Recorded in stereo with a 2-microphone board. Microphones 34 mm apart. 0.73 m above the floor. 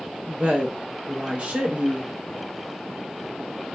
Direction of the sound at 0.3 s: 35° right (ahead or behind).